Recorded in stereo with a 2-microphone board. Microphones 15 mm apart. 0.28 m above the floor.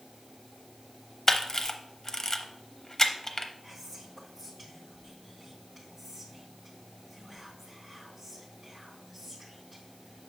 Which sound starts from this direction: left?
A camera shutter, at 1.3 s.